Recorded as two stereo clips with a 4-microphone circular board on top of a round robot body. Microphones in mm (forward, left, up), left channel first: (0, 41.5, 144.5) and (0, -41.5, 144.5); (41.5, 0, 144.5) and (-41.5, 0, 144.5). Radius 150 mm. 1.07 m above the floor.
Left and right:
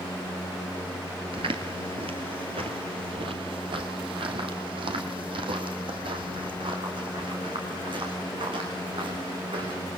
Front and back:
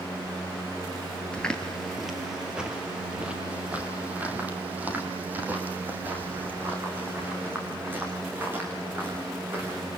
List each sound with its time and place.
1.3 s footsteps: 75° right, 1.3 m; by 9.8 s 115° right, 6.5 m